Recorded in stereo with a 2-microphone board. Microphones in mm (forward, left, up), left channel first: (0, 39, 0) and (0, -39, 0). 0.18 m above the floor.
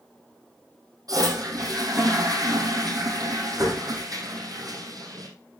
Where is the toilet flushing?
55° right (ahead or behind), 3.5 m.